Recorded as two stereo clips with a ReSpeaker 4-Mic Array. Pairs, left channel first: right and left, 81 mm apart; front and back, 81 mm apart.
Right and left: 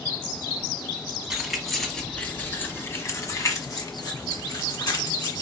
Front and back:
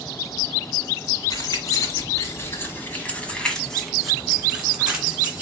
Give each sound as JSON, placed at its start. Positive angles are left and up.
{"t": 1.3, "sound": "keys jangling", "azimuth_deg": 5, "distance_m": 1.3}